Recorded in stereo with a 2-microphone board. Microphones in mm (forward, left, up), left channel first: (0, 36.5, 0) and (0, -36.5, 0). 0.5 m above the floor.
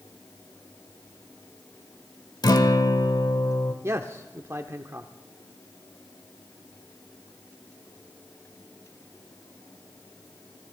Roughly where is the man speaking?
Right.